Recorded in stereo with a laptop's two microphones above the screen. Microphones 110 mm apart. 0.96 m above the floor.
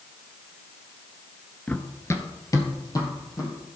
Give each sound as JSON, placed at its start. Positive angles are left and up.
{"t": 1.7, "sound": "running footsteps", "side_deg": 10, "distance_m": 0.9}